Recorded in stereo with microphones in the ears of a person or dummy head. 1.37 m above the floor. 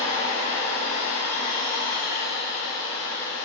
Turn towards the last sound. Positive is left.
turn(degrees=-55)  # may be behind; listen again after turning